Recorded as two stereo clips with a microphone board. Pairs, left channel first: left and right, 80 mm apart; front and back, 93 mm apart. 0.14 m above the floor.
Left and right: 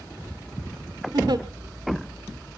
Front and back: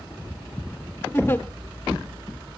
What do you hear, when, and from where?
1.1 s a giggle: 70° right, 1.1 m